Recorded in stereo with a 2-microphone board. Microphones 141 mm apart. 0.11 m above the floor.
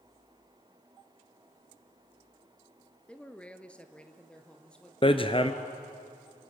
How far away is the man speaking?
About 1.4 m.